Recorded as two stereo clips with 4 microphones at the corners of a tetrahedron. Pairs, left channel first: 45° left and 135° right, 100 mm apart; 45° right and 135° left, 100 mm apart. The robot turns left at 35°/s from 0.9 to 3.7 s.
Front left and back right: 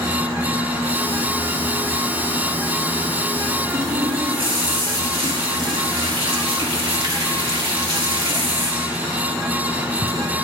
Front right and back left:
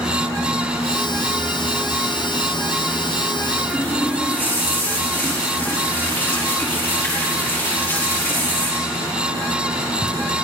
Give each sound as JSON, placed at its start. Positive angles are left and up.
{"t": 3.7, "sound": "a running tap", "azimuth_deg": -115, "distance_m": 4.0}